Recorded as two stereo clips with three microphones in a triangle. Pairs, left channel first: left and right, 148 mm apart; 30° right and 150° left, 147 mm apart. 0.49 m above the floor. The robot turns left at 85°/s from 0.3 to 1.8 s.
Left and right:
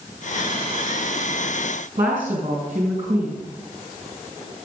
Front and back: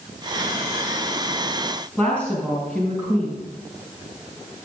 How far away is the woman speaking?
About 4.5 m.